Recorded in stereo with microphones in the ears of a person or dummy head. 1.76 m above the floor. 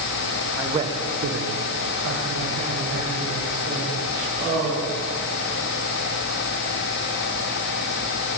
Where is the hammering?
I don't hear hammering.